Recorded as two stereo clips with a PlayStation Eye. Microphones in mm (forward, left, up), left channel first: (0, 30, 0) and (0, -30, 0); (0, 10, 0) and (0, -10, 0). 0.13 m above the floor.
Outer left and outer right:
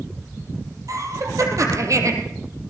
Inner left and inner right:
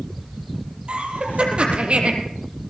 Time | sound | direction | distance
0.9 | laughter | 60° right (ahead or behind) | 4.5 m